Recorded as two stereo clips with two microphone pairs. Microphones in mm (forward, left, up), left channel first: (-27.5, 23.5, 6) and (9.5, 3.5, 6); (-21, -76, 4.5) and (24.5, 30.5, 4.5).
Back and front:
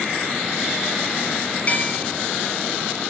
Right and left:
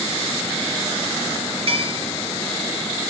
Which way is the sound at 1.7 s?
95° left.